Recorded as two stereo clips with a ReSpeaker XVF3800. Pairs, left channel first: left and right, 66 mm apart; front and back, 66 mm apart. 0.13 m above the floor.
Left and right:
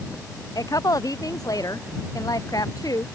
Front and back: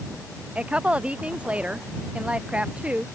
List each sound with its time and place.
0.6 s a woman speaking: 110° left